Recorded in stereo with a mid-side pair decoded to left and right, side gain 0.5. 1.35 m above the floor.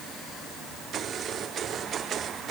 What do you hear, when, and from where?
Only background noise.